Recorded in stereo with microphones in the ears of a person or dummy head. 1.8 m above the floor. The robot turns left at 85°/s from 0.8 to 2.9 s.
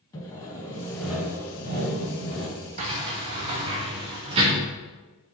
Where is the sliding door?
35° right (ahead or behind), 0.9 m; by 4.6 s 25° right (ahead or behind), 0.9 m.